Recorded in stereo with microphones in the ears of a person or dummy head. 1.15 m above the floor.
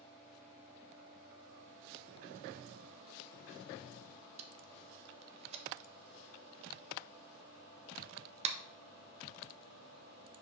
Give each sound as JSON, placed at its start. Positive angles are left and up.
{"t": 4.4, "sound": "tape being pulled", "side_deg": -40, "distance_m": 0.8}